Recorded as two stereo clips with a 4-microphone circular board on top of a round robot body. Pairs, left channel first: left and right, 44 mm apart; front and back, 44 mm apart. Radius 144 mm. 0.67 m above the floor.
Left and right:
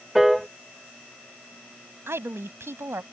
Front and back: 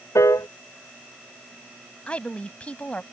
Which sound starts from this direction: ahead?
A piano, at 0.1 s.